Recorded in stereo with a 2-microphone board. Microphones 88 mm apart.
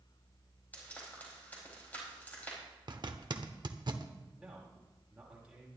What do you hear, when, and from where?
0.7 s frying: 20° left (ahead or behind), 4.5 m
2.9 s a zipper: 55° right (ahead or behind), 0.8 m
4.4 s a man speaking: 10° right (ahead or behind), 5 m